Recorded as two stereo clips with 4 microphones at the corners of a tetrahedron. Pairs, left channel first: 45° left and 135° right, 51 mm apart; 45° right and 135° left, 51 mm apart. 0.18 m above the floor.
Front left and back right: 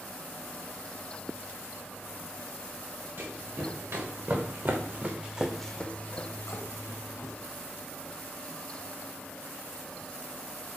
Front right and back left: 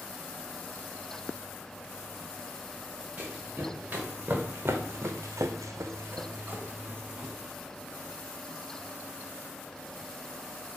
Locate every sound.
3.2 s running footsteps: 160° right, 1.8 m; by 7.3 s 60° left, 1.3 m